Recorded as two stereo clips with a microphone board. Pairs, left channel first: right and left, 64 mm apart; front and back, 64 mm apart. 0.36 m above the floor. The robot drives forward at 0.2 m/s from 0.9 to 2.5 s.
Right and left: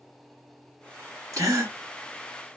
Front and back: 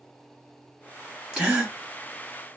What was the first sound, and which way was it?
A gasp, 110° left.